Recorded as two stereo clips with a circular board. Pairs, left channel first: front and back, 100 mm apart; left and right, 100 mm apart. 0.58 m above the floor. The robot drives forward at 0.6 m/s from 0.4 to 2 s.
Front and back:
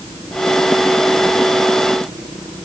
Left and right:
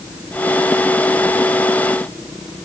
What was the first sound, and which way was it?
Only background noise.